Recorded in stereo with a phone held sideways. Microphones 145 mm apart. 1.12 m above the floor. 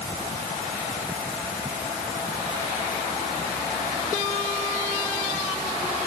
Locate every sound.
Only background noise.